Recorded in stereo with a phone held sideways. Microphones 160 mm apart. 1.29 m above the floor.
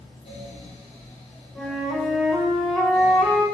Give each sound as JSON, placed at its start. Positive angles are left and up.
{"t": 0.0, "sound": "a fan", "side_deg": 45, "distance_m": 1.1}
{"t": 1.6, "sound": "a flute", "side_deg": 0, "distance_m": 1.0}